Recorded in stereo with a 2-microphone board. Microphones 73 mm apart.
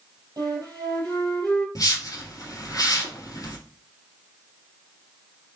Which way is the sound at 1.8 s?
50° left (ahead or behind).